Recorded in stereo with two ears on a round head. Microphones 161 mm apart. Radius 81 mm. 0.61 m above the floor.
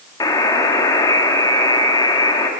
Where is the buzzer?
20° left (ahead or behind), 1.4 m.